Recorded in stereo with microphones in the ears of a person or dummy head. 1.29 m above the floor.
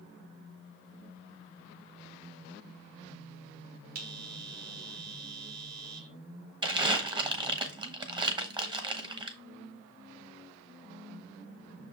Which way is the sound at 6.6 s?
25° right (ahead or behind).